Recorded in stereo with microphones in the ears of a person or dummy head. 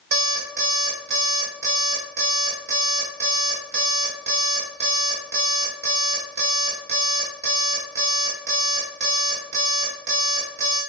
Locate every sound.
0.1 s an alarm clock: 55° right (ahead or behind), 2.5 m